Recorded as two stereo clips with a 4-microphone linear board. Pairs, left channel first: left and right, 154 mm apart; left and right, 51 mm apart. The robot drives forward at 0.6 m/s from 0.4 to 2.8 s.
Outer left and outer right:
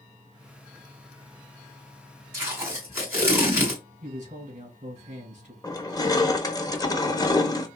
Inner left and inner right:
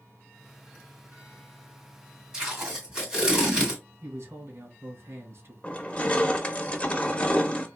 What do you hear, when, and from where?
2.3 s tape being pulled: 15° right (ahead or behind), 2.5 m
4.0 s a man speaking: 50° right (ahead or behind), 2.0 m
5.6 s crushing: 25° left (ahead or behind), 0.7 m